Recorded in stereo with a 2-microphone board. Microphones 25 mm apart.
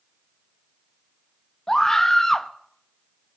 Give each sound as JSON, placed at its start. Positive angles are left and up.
{"t": 1.7, "sound": "a scream", "side_deg": 20, "distance_m": 1.0}